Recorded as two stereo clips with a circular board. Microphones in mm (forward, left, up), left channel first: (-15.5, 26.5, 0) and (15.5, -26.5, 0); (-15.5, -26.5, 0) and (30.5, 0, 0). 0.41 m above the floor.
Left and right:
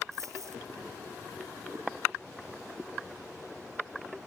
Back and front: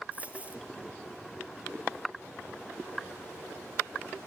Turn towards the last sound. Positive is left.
turn(degrees=-30)